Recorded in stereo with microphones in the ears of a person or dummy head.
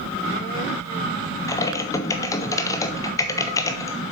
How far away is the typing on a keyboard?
About 0.6 m.